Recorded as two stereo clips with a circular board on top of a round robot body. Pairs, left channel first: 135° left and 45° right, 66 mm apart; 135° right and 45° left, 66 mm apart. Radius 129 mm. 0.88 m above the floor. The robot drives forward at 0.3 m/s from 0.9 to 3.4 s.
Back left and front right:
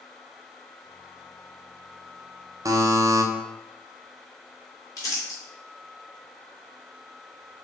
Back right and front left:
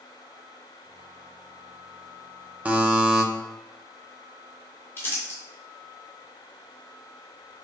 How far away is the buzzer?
About 0.6 m.